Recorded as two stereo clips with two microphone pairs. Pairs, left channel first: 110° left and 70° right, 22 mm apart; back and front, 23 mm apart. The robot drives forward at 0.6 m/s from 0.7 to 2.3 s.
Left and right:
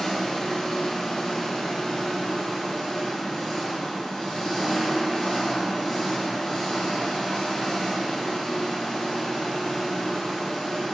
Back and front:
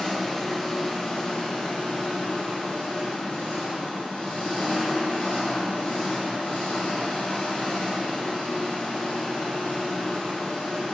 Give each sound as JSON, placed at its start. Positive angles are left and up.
{"t": 0.0, "sound": "an engine running", "azimuth_deg": 125, "distance_m": 1.0}